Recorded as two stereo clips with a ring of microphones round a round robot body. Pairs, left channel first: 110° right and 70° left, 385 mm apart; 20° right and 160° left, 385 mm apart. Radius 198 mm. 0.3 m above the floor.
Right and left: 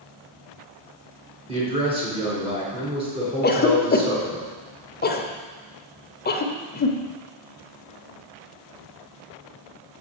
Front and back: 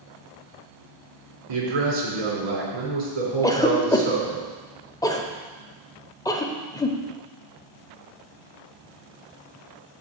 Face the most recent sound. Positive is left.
turn(degrees=-90)